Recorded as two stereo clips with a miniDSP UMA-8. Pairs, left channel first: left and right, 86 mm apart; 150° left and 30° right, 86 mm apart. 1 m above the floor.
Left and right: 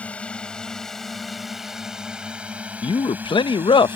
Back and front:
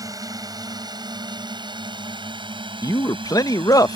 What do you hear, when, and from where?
0.0 s a drone: 15° left; by 4.0 s 30° right
2.8 s a man speaking: 105° left